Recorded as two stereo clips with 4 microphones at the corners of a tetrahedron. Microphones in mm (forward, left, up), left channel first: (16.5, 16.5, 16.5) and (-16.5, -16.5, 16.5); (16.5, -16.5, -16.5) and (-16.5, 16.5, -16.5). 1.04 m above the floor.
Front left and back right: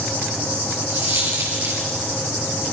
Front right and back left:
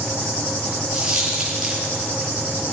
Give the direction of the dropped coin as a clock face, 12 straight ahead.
5 o'clock.